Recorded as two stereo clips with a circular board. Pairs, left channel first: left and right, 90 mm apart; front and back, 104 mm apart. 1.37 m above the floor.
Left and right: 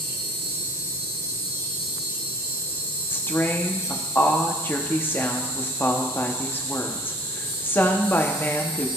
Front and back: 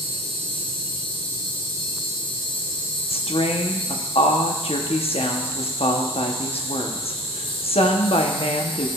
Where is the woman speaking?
20° left, 0.8 m.